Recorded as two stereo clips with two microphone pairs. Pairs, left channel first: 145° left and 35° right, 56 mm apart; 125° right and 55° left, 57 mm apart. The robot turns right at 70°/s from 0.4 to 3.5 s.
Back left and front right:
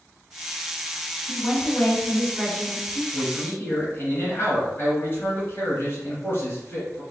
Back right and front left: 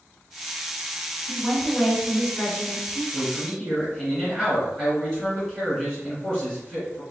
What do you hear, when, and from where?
1.3 s a woman speaking: 95° left, 1.9 m; by 3.0 s 145° right, 1.9 m
3.1 s a man speaking: 145° left, 1.8 m; by 7.0 s 170° left, 1.8 m